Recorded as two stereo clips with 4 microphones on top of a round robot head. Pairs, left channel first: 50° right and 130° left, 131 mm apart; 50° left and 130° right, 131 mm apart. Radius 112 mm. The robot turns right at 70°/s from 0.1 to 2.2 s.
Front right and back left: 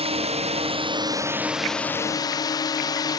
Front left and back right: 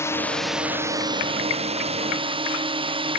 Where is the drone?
115° left; by 3.2 s 100° right.